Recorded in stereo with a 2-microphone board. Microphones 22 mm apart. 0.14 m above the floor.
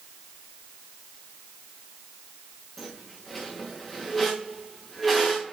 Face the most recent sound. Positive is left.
turn(degrees=10)  # may be behind; listen again after turning